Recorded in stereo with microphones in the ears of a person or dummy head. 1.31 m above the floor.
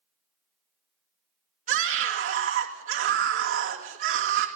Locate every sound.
1.7 s a scream: 45° right (ahead or behind), 2.5 m